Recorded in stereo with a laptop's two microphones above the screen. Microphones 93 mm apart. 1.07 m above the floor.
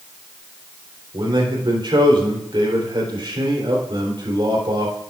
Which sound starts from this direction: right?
A man speaking, at 1.1 s.